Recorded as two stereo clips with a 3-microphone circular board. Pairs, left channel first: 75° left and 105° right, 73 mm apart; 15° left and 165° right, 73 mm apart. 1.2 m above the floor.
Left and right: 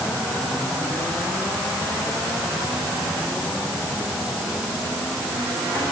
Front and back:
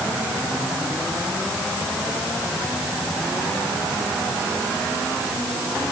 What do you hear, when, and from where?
Only background noise.